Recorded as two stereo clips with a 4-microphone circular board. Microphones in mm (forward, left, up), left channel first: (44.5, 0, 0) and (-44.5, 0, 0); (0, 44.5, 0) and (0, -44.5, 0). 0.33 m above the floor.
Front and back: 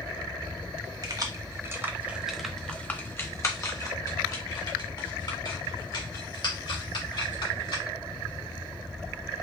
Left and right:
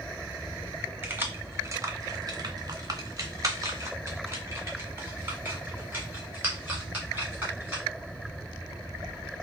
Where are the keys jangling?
155° right, 0.9 m; by 7.8 s 20° right, 3 m.